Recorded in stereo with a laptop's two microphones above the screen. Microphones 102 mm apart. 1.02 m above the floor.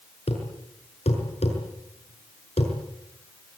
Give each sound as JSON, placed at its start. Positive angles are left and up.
{"t": 0.3, "sound": "a thud", "side_deg": 85, "distance_m": 6.5}